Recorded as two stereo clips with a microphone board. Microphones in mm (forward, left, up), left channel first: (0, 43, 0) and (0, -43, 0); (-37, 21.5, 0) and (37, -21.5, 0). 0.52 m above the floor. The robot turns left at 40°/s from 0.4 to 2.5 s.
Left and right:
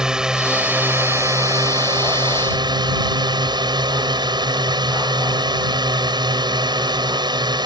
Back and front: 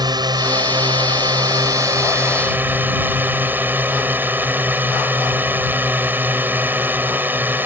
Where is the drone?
10° right; by 7.7 s 95° right.